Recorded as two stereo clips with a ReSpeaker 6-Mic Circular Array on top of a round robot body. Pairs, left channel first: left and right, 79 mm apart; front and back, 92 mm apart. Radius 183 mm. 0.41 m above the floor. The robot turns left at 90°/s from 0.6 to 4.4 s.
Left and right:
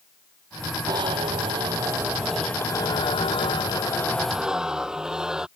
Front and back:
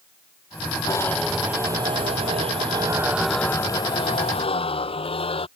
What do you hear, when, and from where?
0.9 s a zipper: 50° right; by 5.5 s 10° right